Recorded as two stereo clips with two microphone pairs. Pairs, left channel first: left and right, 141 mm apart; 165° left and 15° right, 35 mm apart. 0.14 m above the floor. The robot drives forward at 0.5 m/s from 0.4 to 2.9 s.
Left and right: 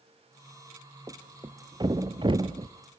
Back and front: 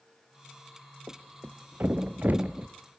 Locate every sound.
1.1 s a thud: 25° right, 1.5 m; by 2.7 s 50° right, 0.9 m